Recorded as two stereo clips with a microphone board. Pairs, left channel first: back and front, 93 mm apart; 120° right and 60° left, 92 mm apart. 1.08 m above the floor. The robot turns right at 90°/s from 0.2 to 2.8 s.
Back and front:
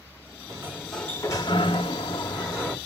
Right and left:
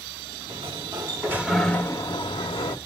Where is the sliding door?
50° left, 1.7 m; by 2.8 s 105° right, 1.7 m.